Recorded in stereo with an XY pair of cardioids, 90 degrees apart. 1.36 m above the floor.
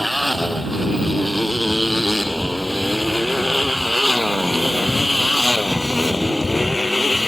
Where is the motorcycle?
5° right; by 7.3 s 15° left.